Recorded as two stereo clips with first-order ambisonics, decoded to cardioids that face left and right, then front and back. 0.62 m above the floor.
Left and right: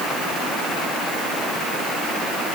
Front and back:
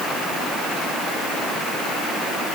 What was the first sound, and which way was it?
Only background noise.